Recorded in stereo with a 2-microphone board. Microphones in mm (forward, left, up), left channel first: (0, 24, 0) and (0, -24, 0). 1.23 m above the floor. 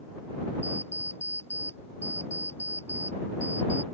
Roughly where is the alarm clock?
Left.